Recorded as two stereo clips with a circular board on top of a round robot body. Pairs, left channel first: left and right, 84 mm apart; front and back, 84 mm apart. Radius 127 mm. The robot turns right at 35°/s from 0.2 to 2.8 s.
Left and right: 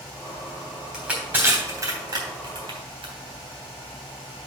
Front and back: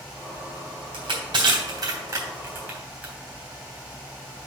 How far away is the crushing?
About 3 m.